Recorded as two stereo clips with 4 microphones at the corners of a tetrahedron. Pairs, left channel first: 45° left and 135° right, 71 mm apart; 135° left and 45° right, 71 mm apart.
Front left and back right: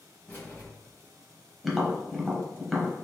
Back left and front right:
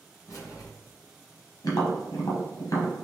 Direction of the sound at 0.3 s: 105° left.